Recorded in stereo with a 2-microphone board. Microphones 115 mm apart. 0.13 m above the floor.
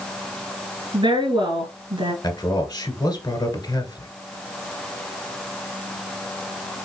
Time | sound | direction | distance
0.9 | a woman speaking | 45° right (ahead or behind) | 2 m
2.2 | a man speaking | 35° left (ahead or behind) | 1.8 m